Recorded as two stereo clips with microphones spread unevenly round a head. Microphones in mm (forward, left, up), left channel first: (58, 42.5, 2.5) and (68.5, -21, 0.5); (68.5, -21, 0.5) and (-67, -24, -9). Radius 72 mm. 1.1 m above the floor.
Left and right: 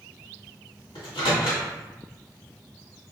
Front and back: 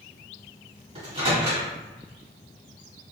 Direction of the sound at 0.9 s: 130° left.